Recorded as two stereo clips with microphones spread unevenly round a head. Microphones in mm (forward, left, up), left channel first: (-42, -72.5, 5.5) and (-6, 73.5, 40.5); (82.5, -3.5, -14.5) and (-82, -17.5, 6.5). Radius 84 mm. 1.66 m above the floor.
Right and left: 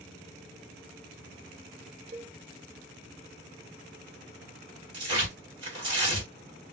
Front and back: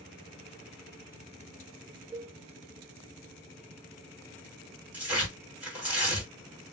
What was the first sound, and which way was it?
A cowbell, 105° left.